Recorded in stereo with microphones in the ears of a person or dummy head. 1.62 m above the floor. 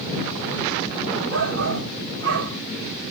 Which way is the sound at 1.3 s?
70° right (ahead or behind).